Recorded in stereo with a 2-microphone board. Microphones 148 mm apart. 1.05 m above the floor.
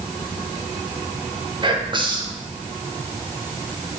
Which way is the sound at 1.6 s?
30° right (ahead or behind).